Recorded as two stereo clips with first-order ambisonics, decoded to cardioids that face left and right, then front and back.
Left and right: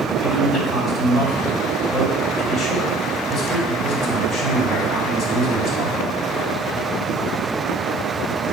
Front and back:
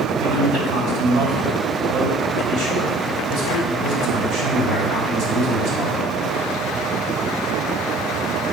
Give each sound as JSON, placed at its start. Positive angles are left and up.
{"t": 0.2, "sound": "a man speaking", "azimuth_deg": 160, "distance_m": 2.5}